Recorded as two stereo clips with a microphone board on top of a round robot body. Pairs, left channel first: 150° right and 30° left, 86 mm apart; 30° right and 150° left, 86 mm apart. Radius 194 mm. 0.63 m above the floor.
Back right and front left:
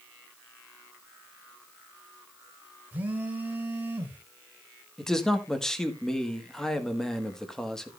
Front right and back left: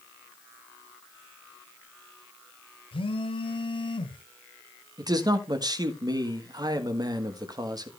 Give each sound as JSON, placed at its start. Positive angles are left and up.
{"t": 2.9, "sound": "a phone buzzing", "azimuth_deg": -40, "distance_m": 1.9}
{"t": 5.0, "sound": "a man speaking", "azimuth_deg": 125, "distance_m": 1.8}